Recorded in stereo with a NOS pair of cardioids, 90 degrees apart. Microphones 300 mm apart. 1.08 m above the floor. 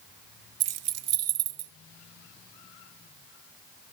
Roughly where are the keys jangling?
Ahead right.